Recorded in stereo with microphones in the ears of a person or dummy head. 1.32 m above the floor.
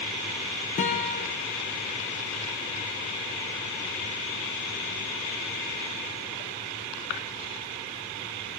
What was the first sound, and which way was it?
A guitar, 35° left (ahead or behind).